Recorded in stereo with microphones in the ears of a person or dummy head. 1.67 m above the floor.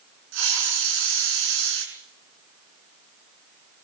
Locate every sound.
0.3 s a hiss: 75° right (ahead or behind), 7.5 m